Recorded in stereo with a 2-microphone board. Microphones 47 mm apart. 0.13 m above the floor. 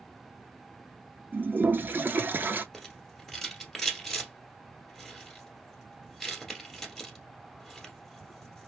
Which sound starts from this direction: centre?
A rattle, at 2.7 s.